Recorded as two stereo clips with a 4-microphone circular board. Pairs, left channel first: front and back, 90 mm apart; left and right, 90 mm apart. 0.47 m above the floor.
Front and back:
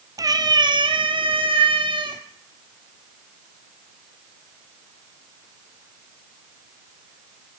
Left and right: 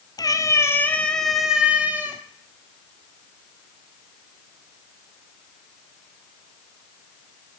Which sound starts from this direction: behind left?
A cat meowing, at 0.2 s.